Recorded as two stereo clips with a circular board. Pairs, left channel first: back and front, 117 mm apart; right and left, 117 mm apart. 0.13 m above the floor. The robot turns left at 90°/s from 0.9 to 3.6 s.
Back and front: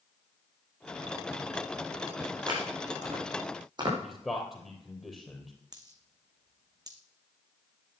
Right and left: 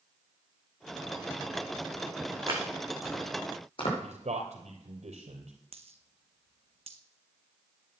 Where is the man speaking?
90° left, 3 m.